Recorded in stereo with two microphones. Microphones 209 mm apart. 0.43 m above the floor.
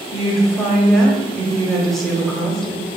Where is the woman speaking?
Centre (ahead or behind), 0.7 m.